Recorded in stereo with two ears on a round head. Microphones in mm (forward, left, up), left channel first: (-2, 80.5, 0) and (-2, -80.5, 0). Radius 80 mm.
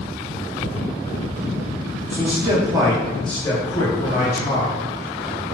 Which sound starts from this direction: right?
A man speaking, at 2.1 s.